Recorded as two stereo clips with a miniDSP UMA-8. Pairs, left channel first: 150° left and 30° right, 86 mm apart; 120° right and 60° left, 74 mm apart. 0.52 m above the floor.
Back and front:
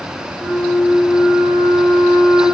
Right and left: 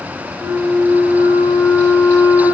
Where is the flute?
55° left, 0.9 m.